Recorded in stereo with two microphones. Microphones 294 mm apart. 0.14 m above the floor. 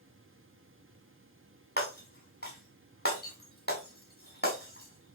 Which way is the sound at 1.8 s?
35° left (ahead or behind).